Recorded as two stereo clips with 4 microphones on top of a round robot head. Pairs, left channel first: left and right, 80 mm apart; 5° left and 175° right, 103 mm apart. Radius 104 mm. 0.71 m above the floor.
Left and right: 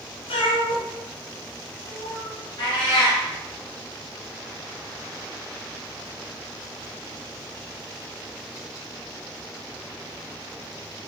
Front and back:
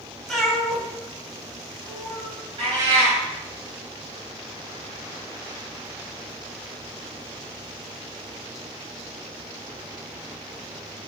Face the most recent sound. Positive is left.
turn(degrees=140)